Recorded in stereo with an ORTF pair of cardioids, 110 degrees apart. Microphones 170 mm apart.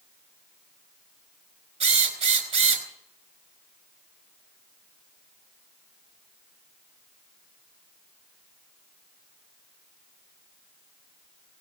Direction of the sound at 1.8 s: 45° right.